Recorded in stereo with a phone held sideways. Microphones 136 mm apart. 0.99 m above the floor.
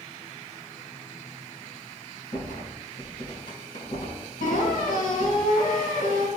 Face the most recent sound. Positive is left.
turn(degrees=80)